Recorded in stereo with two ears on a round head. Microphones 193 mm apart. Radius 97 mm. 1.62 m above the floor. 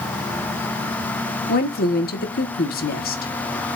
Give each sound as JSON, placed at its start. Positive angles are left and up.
{"t": 1.5, "sound": "a woman speaking", "side_deg": 40, "distance_m": 1.6}